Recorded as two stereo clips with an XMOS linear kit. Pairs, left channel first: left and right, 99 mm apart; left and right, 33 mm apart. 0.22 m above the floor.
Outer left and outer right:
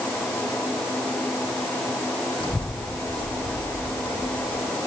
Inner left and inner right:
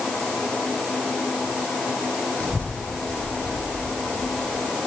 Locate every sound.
2.4 s a child speaking: 55° left (ahead or behind), 5.5 m; by 4.7 s 75° left (ahead or behind), 6 m